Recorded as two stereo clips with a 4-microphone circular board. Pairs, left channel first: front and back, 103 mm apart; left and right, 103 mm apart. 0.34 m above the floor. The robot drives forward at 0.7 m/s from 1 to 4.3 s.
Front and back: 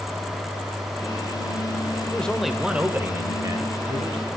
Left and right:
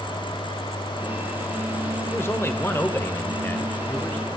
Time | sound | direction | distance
2.1 | a man speaking | 65° left | 1.1 m